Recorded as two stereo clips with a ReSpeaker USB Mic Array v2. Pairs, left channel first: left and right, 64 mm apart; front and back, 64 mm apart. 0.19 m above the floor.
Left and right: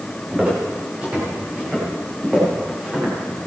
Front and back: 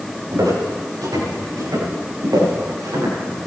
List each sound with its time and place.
0.3 s footsteps: 160° right, 7.5 m; by 3.5 s 165° right, 9.5 m